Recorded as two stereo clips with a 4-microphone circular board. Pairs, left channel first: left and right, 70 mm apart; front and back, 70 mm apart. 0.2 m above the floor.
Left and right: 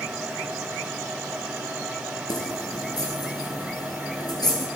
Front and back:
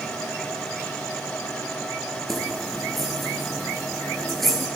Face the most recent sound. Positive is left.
turn(degrees=90)